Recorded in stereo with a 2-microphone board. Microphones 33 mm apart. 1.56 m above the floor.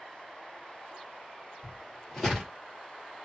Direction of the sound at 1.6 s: 15° left (ahead or behind).